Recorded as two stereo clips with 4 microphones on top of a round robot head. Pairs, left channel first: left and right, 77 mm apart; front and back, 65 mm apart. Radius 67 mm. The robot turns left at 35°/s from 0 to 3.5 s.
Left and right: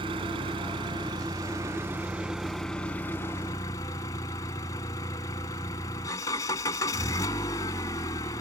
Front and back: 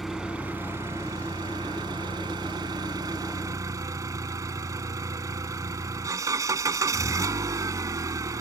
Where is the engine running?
90° right; by 8.4 s 145° left.